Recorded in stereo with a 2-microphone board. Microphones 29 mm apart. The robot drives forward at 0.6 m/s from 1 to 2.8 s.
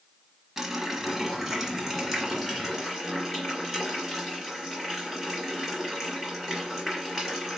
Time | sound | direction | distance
0.6 | a running tap | 10° right (ahead or behind) | 1.2 m